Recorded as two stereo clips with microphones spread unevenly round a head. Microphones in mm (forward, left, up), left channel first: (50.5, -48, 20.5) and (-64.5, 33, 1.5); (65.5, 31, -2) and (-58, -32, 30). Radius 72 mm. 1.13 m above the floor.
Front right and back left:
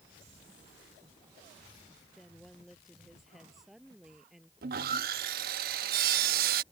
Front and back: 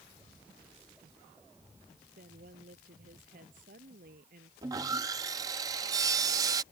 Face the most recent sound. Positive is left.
turn(degrees=155)